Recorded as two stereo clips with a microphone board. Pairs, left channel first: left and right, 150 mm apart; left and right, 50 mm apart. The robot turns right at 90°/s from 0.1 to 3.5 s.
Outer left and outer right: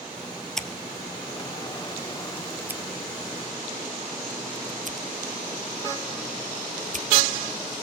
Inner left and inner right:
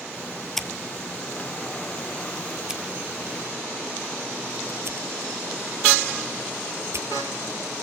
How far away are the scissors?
About 1.5 m.